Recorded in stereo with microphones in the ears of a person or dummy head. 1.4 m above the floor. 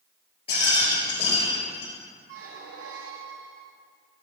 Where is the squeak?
65° right (ahead or behind), 1.4 m.